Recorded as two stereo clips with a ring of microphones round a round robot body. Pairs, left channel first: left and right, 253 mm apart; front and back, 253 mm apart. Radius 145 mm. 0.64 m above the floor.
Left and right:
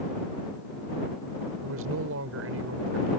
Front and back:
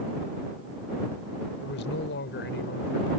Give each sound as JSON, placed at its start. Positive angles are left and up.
{"t": 1.6, "sound": "a man speaking", "azimuth_deg": -50}